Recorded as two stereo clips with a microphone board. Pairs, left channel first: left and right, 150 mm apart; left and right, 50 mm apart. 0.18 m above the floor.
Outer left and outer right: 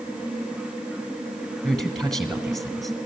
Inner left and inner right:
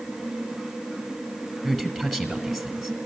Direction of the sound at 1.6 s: Centre (ahead or behind).